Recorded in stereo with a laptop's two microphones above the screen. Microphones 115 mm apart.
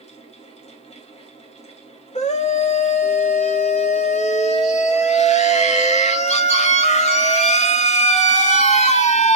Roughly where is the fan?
Left.